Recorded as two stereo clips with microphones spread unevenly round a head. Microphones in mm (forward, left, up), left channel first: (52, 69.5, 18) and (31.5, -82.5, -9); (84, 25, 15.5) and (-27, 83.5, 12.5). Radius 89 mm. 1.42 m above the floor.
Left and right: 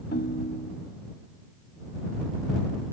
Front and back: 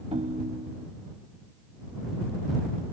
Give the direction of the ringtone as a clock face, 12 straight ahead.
8 o'clock.